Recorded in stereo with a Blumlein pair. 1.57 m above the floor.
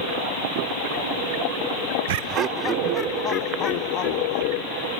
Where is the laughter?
55° right, 0.7 m; by 4.9 s 35° left, 3 m.